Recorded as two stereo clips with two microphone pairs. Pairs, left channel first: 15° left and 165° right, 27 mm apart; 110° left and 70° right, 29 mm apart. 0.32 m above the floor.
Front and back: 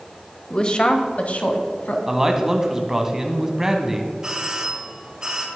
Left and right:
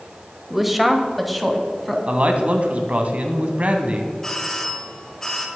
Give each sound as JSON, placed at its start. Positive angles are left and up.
{"t": 0.5, "sound": "a woman speaking", "azimuth_deg": 5, "distance_m": 1.2}
{"t": 2.1, "sound": "a man speaking", "azimuth_deg": -95, "distance_m": 1.9}
{"t": 4.2, "sound": "a doorbell", "azimuth_deg": 165, "distance_m": 1.8}